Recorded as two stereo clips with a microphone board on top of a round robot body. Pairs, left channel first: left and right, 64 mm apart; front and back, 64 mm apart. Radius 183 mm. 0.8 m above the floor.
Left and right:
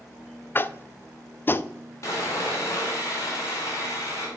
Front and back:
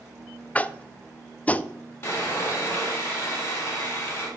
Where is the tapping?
55° left, 0.5 m.